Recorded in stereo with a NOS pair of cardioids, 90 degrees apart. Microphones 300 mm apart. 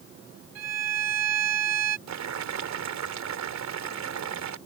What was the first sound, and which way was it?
A violin, 55° right.